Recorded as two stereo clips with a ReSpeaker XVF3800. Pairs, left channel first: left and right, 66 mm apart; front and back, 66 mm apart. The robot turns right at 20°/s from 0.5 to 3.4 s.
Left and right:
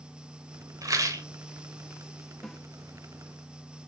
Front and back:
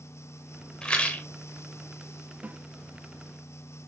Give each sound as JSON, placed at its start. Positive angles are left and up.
{"t": 0.8, "sound": "a rattle", "azimuth_deg": -75, "distance_m": 1.5}
{"t": 2.4, "sound": "a snare drum", "azimuth_deg": 170, "distance_m": 0.9}